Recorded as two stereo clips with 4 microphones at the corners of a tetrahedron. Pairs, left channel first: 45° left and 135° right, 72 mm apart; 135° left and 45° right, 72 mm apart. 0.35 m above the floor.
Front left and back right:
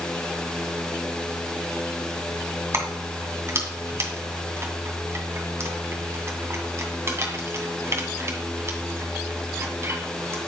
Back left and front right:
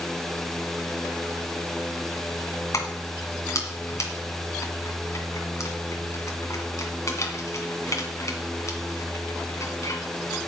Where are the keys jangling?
175° left, 2.5 m.